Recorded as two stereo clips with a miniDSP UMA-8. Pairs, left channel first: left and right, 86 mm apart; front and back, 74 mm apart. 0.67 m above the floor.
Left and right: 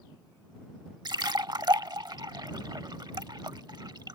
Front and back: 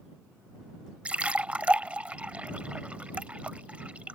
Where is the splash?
110° right.